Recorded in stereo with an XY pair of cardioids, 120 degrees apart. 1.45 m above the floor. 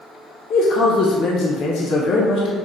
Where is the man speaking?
65° left, 0.7 m.